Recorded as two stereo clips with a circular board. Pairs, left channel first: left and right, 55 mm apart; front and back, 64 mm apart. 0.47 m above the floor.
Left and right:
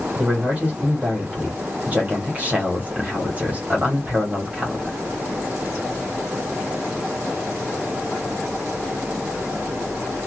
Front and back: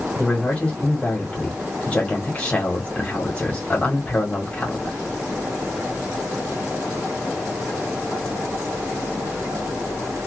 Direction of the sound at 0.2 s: 55° right.